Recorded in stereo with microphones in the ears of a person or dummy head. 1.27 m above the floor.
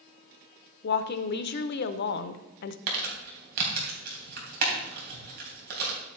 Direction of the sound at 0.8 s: 55° left (ahead or behind).